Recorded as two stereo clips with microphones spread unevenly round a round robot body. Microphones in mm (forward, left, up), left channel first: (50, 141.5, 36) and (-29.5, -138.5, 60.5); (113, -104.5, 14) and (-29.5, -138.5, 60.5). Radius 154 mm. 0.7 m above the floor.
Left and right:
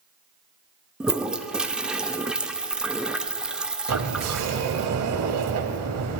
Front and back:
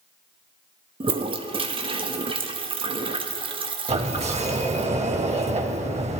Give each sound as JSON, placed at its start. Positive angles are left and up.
{"t": 1.0, "sound": "a toilet flushing", "azimuth_deg": 155, "distance_m": 0.7}
{"t": 3.9, "sound": "a sliding door", "azimuth_deg": -140, "distance_m": 0.9}